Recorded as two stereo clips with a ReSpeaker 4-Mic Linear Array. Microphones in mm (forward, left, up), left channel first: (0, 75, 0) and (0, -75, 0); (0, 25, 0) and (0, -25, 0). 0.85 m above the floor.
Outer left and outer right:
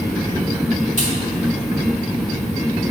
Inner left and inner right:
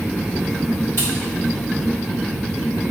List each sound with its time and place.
1.0 s a crack: 55° left (ahead or behind), 2 m